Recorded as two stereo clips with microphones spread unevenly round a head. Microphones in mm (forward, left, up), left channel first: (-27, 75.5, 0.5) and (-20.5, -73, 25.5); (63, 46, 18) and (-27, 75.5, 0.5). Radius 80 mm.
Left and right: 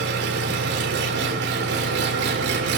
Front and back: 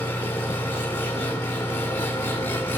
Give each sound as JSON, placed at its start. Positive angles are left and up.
{"t": 0.0, "sound": "an engine running", "azimuth_deg": -95, "distance_m": 3.0}